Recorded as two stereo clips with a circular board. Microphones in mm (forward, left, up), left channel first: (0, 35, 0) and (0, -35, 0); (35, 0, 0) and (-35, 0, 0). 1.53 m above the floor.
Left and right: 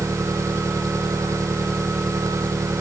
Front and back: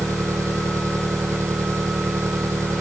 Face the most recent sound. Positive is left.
turn(degrees=-135)